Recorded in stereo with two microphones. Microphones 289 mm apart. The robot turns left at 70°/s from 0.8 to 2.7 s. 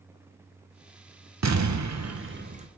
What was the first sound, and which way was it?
An explosion, 70° right.